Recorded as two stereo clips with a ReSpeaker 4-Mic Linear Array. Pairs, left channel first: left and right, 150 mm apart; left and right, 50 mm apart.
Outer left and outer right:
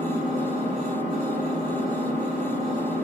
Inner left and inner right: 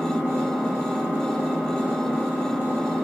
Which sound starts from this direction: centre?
An engine running, at 0.0 s.